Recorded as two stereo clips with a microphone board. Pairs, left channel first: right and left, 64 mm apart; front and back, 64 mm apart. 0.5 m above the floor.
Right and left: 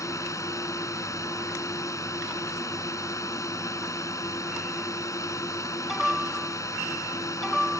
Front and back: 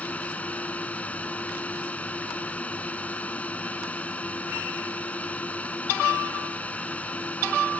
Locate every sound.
0.0 s a drone: 65° right